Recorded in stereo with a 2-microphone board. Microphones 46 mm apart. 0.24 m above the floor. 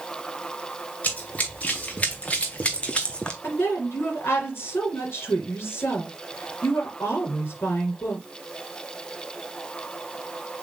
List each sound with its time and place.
1.0 s running footsteps: 35° left (ahead or behind), 2.5 m; by 3.3 s 20° left (ahead or behind), 1.1 m
3.4 s a woman speaking: 70° left (ahead or behind), 3 m